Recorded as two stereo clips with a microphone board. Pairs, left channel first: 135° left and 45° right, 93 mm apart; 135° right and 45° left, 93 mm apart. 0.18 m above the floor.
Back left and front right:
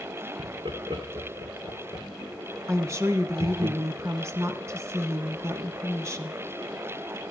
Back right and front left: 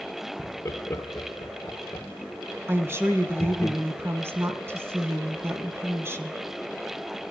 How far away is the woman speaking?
About 2 m.